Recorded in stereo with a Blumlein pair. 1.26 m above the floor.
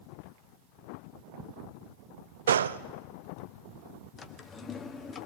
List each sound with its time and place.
2.5 s a gunshot: 65° right, 0.6 m
4.2 s a drawer: 20° left, 1.3 m